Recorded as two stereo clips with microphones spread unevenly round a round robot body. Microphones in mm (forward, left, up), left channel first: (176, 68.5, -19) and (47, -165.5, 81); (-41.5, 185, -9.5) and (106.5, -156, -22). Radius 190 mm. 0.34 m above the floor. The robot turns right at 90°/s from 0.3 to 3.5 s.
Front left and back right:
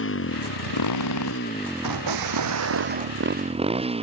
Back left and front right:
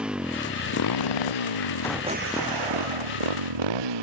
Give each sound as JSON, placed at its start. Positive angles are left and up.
{"t": 0.0, "sound": "a motorcycle", "azimuth_deg": 20}
{"t": 1.8, "sound": "an explosion", "azimuth_deg": -165}